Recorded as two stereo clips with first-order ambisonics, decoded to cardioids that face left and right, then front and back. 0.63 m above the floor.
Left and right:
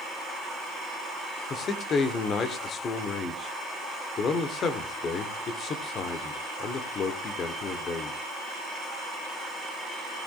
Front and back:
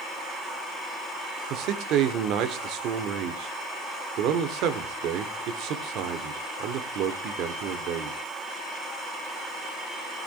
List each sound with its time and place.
1.5 s a man speaking: 150° left, 1.7 m